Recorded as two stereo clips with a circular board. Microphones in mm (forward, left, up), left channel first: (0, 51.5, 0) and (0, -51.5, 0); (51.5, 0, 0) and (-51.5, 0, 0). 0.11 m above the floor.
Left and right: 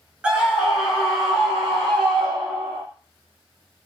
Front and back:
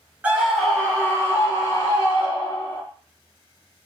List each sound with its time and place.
0.2 s a scream: 145° right, 1.3 m; by 2.8 s 5° left, 2.5 m